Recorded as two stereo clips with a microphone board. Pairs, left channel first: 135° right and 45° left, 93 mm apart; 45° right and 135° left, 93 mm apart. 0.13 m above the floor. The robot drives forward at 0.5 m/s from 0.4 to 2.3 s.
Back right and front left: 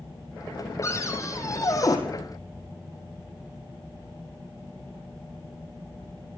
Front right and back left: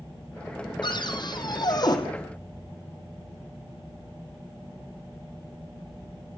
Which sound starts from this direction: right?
A cupboard door, at 0.8 s.